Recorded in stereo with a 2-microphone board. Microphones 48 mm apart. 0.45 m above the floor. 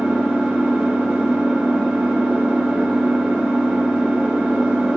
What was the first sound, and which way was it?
An engine running, 10° right (ahead or behind).